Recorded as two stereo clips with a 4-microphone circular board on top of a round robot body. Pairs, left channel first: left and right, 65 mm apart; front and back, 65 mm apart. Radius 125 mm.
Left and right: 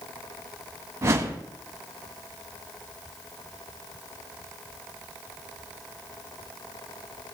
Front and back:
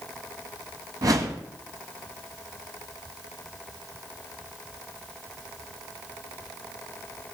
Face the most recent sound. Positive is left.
turn(degrees=-140)